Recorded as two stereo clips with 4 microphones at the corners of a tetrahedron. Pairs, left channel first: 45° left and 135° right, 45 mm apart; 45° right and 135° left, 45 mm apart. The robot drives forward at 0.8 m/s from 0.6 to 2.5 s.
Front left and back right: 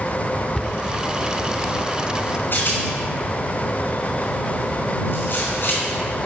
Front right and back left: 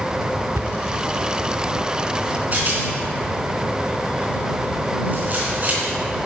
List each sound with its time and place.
0.6 s a cupboard door: 130° left, 0.5 m; by 0.8 s 135° left, 0.6 m
2.5 s a rattle: 85° left, 3.5 m